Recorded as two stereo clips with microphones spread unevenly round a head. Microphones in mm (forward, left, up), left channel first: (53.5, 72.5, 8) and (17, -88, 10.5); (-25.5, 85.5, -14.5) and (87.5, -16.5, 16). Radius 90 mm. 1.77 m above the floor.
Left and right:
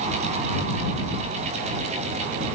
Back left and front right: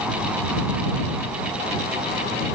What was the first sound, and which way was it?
Only background noise.